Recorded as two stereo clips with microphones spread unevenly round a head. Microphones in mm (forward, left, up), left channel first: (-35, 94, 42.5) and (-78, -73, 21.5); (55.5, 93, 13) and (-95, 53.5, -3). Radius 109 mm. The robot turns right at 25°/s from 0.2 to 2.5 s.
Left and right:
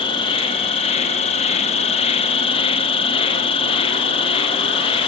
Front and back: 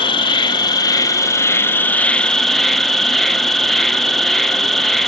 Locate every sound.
0.0 s an insect: 40° left, 0.7 m; by 5.1 s 95° left, 0.7 m